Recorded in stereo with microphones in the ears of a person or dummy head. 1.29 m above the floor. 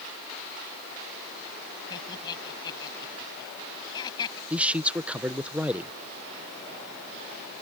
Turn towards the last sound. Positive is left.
turn(degrees=-5)  # may be behind; listen again after turning